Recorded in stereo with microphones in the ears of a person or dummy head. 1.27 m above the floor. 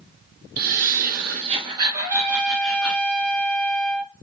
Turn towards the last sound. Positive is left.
turn(degrees=-45)  # may be behind; listen again after turning